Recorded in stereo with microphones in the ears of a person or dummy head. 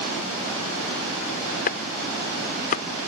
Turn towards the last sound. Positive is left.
turn(degrees=45)  # may be behind; listen again after turning